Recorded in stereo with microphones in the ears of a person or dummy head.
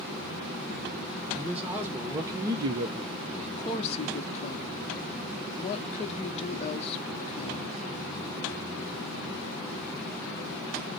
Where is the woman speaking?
35° left (ahead or behind), 0.8 m.